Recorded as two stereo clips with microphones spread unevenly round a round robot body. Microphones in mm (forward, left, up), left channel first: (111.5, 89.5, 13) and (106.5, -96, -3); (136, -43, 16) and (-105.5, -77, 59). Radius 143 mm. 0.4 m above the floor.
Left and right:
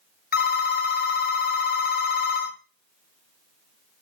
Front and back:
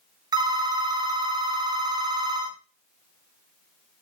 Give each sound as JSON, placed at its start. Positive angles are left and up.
{"t": 0.3, "sound": "a phone ringing", "azimuth_deg": 110, "distance_m": 0.5}